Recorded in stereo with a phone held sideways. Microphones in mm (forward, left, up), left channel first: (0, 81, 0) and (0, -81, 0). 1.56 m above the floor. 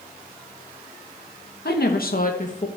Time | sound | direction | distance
1.6 | a woman speaking | 80° left | 1.9 m